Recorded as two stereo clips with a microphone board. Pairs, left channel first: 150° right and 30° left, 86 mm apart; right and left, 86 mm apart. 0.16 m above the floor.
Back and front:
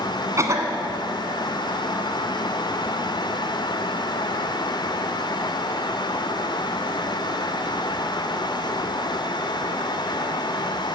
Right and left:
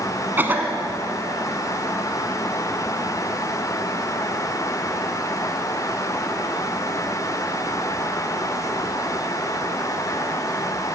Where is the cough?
40° left, 1.6 m.